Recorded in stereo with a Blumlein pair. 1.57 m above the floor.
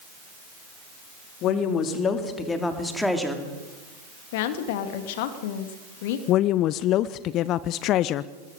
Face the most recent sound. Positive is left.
turn(degrees=35)